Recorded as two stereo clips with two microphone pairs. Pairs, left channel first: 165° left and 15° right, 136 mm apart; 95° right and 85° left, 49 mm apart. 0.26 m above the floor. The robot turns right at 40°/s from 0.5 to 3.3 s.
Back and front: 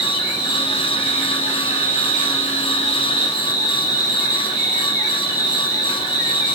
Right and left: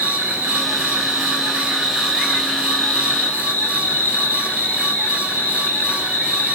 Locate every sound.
0.0 s an insect: 105° left, 1.0 m; by 6.6 s 140° right, 1.0 m